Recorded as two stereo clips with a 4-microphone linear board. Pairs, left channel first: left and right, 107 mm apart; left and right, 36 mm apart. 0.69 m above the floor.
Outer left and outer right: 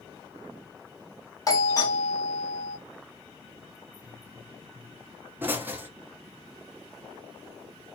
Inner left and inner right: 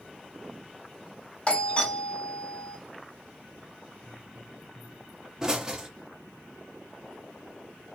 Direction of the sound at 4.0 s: 20° right (ahead or behind).